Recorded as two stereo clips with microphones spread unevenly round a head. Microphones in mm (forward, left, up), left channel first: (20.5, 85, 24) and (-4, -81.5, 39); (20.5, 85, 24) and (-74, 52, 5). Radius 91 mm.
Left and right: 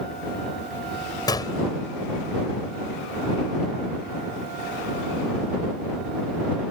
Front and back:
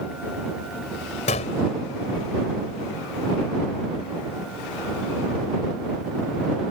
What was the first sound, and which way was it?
A gunshot, 10° left.